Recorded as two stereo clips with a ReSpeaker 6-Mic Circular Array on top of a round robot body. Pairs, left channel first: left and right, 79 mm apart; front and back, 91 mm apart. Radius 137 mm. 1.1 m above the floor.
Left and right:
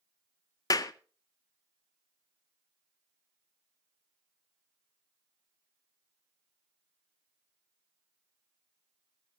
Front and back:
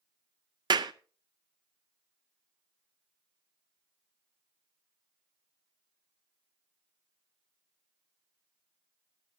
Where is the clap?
135° left, 0.6 m.